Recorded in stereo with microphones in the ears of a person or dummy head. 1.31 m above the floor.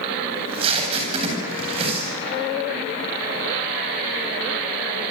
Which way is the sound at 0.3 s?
30° right (ahead or behind).